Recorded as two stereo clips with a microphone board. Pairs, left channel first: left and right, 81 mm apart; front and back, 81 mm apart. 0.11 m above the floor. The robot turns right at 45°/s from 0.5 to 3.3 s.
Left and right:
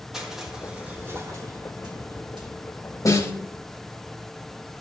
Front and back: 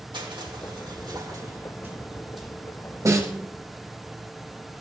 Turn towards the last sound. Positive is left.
turn(degrees=140)